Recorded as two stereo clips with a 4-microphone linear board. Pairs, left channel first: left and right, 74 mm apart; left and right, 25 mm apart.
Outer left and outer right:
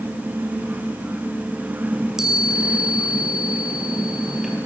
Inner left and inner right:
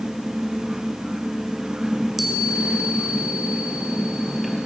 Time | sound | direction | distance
1.9 | a chime | 10° right (ahead or behind) | 3.5 m